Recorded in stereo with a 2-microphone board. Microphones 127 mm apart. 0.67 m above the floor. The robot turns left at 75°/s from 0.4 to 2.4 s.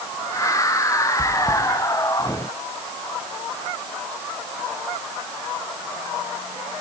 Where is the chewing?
65° right (ahead or behind), 1.9 m; by 1.6 s 35° right (ahead or behind), 1.9 m.